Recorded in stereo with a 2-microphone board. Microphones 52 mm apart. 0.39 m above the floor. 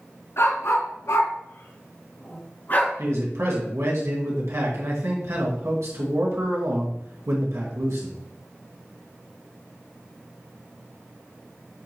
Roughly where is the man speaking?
Right.